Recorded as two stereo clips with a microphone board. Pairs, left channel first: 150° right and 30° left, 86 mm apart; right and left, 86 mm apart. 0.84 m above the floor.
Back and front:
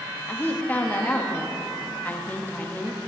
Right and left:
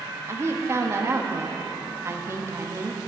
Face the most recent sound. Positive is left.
turn(degrees=145)